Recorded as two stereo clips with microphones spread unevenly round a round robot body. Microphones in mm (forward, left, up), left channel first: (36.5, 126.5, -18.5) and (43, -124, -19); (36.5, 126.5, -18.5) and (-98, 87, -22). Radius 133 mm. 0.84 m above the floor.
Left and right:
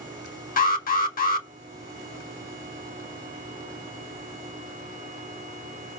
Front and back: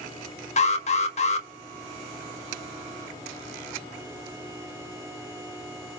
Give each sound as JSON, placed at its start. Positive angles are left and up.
{"t": 0.6, "sound": "an alarm", "azimuth_deg": 40, "distance_m": 1.7}